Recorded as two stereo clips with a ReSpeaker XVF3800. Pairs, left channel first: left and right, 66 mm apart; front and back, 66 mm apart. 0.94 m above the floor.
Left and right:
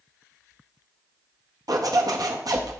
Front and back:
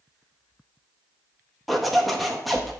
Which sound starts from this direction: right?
A zipper, at 1.7 s.